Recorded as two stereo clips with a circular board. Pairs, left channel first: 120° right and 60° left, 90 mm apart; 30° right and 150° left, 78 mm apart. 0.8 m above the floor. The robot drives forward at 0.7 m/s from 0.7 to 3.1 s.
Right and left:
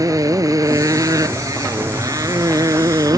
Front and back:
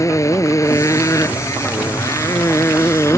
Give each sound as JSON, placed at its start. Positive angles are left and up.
{"t": 0.0, "sound": "a motorcycle", "azimuth_deg": 15}